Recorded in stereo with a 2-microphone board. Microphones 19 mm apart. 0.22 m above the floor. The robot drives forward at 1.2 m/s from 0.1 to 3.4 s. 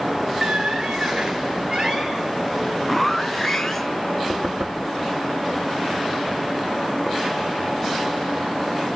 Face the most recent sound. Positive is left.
turn(degrees=-65)  # may be behind; listen again after turning